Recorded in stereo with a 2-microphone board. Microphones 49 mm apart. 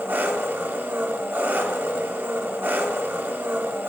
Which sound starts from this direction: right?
An engine running, at 0.0 s.